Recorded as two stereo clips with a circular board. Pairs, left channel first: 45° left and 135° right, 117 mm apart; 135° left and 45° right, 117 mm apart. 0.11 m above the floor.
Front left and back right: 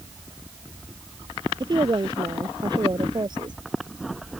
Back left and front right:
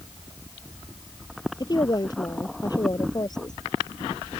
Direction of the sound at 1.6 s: 175° right.